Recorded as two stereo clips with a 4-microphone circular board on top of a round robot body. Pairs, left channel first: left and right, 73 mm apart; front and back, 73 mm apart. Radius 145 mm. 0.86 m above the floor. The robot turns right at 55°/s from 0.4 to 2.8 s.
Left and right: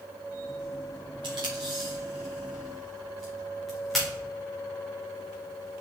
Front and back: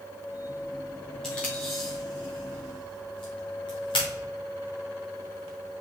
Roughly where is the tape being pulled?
Right.